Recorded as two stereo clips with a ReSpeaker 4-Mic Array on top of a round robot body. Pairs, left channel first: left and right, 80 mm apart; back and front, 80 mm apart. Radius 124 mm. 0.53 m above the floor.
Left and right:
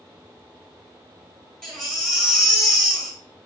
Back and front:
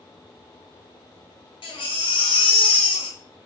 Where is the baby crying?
175° left, 1.7 m.